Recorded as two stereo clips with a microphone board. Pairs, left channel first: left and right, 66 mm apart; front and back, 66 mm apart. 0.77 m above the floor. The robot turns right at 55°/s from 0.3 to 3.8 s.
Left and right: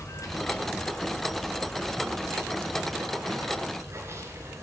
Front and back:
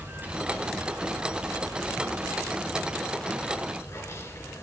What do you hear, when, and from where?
0.0 s running water: 120° left, 3 m; by 4.6 s 45° right, 3 m